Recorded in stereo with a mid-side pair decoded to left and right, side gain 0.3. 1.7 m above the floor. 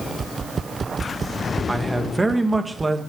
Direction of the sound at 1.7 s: 30° right.